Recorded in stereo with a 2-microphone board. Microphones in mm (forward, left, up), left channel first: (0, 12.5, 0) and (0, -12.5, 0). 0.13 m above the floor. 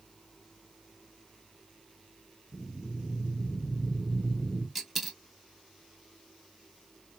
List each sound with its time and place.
2.5 s breathing: 5° left (ahead or behind), 2 m
4.8 s a dropped coin: 5° right (ahead or behind), 0.8 m